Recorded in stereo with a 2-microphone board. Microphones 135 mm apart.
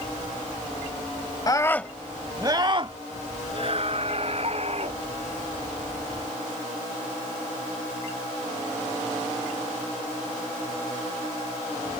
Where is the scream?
30° left (ahead or behind); by 5.0 s 50° right (ahead or behind).